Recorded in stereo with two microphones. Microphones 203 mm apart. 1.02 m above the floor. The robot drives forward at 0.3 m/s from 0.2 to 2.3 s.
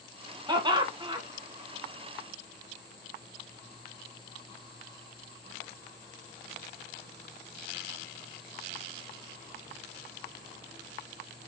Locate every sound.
0.5 s laughter: 20° right (ahead or behind), 1.2 m; by 1.2 s 25° right (ahead or behind), 1.0 m